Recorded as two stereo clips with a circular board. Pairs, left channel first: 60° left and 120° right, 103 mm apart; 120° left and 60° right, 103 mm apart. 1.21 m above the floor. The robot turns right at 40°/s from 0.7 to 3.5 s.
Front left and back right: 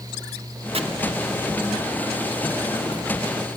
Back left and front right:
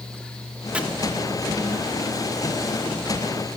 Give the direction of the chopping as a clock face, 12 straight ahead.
5 o'clock.